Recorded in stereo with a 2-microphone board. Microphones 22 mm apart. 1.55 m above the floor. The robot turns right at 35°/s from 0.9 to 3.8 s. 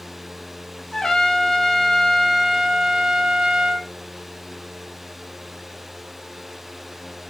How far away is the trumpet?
About 3.5 m.